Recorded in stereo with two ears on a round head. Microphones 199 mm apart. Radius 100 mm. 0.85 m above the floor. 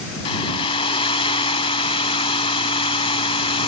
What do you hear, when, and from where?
0.2 s a hair dryer: 25° left (ahead or behind)